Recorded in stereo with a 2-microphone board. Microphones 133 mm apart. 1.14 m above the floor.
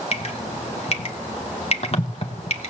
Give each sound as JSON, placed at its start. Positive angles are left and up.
{"t": 0.1, "sound": "dripping", "side_deg": 50, "distance_m": 2.5}